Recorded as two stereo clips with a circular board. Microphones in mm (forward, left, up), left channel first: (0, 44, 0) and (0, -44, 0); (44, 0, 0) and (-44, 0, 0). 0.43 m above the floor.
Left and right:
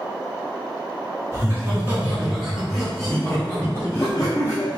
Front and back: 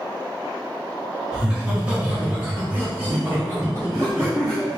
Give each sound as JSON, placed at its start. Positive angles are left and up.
{"t": 1.3, "sound": "laughter", "azimuth_deg": -105, "distance_m": 1.6}